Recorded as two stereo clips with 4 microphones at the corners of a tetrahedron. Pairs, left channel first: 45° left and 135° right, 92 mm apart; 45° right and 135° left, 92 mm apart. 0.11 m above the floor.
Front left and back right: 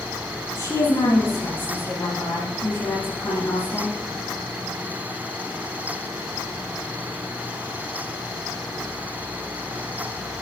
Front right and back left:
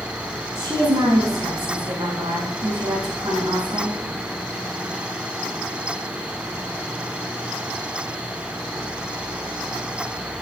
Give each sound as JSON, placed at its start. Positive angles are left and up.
{"t": 0.6, "sound": "a woman speaking", "azimuth_deg": 90, "distance_m": 4.5}